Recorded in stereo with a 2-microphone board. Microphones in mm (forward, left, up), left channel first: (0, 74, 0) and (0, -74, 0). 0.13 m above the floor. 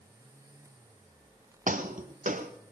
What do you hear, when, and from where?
1.7 s footsteps: 65° right (ahead or behind), 1.3 m